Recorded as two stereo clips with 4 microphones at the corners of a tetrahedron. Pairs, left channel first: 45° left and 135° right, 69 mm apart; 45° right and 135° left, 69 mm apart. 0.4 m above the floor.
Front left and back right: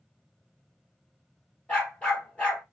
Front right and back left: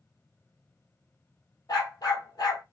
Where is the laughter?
I don't hear laughter.